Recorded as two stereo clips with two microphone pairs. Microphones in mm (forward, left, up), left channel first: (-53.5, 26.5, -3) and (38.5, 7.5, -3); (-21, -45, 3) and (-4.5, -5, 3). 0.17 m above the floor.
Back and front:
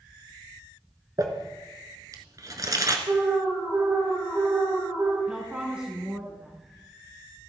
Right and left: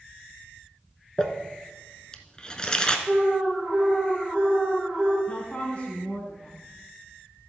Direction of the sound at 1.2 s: 50° right.